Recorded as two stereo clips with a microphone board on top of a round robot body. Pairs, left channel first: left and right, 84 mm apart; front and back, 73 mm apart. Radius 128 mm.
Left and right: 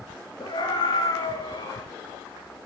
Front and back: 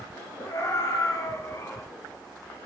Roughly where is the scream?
Ahead left.